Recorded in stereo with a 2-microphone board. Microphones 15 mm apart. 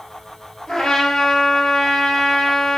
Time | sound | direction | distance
0.7 | a trumpet | 75° left (ahead or behind) | 2 m